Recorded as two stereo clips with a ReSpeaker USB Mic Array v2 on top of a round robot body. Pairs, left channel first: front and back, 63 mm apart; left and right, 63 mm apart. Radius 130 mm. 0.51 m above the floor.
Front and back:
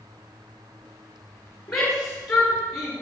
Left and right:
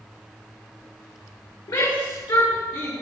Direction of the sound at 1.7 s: 80° left.